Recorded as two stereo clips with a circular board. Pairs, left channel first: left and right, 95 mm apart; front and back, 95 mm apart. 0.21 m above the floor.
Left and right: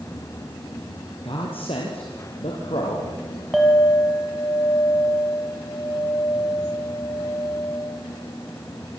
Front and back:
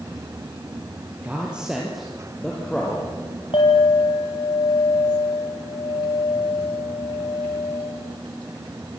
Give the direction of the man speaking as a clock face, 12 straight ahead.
9 o'clock.